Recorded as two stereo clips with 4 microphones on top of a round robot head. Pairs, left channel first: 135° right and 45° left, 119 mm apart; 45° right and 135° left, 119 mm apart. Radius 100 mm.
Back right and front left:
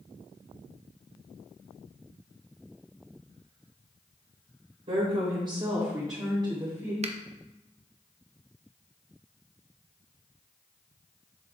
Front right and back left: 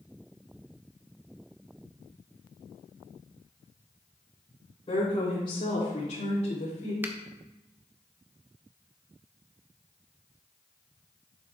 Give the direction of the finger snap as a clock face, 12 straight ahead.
10 o'clock.